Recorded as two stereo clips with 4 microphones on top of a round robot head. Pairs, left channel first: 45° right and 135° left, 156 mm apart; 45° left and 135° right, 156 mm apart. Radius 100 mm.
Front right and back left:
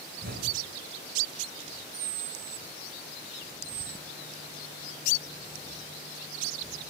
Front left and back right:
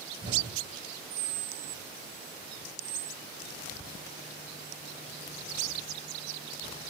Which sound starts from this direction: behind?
An explosion, at 0.2 s.